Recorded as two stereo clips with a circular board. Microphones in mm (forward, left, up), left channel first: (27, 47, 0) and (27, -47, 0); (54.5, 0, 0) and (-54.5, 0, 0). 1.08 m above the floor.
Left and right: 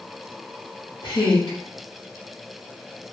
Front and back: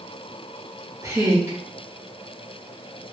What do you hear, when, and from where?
1.0 s a woman speaking: 120° left, 2.5 m